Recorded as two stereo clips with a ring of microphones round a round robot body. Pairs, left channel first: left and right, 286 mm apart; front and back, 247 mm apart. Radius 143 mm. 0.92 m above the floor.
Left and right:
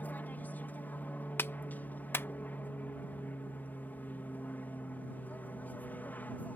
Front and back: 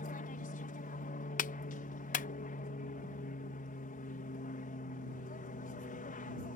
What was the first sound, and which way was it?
An aircraft, 10° left.